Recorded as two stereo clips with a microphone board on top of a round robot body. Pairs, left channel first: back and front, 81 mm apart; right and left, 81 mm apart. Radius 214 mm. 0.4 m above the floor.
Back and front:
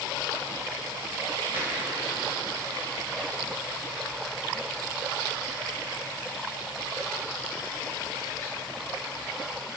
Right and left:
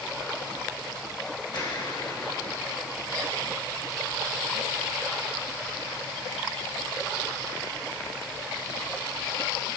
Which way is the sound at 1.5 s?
65° right.